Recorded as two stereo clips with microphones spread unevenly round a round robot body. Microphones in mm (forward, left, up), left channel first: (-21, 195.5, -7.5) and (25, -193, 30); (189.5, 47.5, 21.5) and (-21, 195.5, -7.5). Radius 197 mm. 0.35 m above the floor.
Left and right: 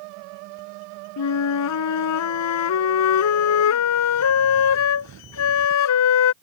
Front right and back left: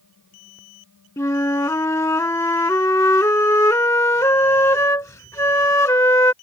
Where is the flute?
45° left.